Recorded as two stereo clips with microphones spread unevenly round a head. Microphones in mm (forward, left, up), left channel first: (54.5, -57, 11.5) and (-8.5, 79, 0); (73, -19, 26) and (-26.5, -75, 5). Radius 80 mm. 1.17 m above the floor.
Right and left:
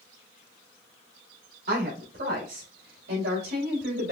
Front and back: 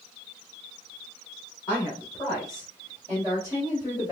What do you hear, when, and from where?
1.7 s a woman speaking: 95° left, 3.5 m; by 4.1 s 110° left, 2 m